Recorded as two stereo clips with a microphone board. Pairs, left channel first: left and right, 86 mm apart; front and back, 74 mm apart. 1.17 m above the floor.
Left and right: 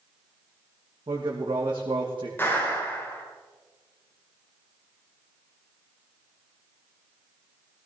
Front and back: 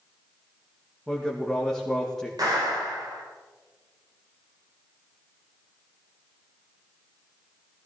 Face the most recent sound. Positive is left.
turn(degrees=155)